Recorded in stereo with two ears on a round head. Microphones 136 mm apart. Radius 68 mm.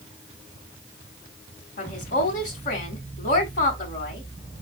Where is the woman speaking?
50° left (ahead or behind), 3 m.